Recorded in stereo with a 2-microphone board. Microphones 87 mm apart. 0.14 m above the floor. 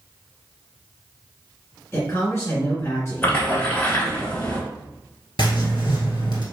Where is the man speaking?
25° left (ahead or behind), 2.0 m.